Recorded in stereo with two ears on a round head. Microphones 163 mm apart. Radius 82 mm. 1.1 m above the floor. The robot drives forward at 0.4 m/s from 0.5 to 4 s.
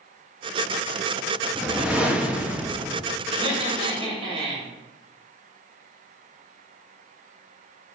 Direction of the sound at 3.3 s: 30° right (ahead or behind).